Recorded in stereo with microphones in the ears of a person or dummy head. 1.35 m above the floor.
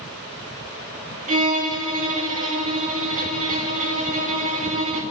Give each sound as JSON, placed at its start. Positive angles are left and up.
{"t": 1.3, "sound": "a violin", "side_deg": -45, "distance_m": 2.5}